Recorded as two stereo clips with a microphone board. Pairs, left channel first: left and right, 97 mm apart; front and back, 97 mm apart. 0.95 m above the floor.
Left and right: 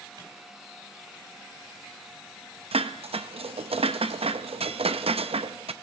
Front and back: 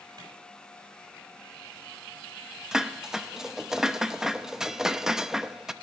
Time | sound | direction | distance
0.2 | a clap | 135° right | 5 m
2.7 | dishes clattering | 95° right | 0.5 m